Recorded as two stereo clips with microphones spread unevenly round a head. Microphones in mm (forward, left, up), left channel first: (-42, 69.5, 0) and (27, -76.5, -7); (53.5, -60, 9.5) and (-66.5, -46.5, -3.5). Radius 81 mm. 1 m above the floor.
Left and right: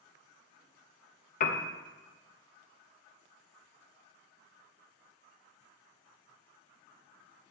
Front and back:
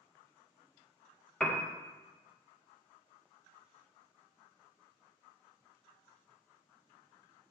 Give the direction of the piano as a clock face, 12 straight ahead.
9 o'clock.